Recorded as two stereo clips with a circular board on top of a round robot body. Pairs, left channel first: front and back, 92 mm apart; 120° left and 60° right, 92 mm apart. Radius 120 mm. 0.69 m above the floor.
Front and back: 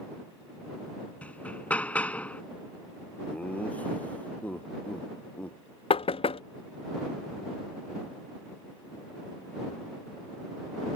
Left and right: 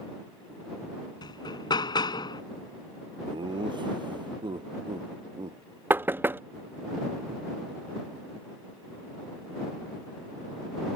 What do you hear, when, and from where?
1.2 s hammering: 75° left
3.2 s laughter: 75° right
5.9 s knocking: 10° left